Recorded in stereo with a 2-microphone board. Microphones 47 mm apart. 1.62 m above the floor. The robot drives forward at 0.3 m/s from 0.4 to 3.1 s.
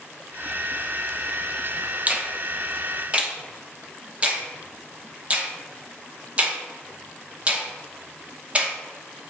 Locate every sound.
2.1 s a finger snap: 30° right (ahead or behind), 0.9 m; by 8.8 s 25° right (ahead or behind), 1.1 m